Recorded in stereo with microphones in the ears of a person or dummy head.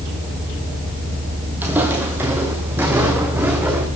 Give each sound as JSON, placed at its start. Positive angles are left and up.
{"t": 1.6, "sound": "footsteps", "side_deg": -5, "distance_m": 2.5}